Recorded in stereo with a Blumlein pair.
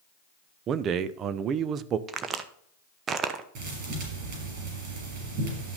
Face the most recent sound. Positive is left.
turn(degrees=-40)